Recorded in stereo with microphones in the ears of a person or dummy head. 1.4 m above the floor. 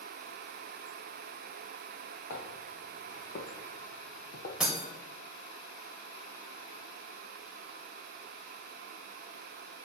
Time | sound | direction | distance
2.3 | footsteps | 50° left (ahead or behind) | 3.5 m
4.6 | breaking glass | 5° right (ahead or behind) | 2 m